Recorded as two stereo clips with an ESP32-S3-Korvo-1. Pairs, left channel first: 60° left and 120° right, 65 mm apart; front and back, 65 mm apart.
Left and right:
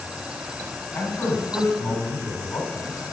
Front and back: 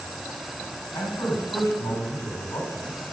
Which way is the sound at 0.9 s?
20° left.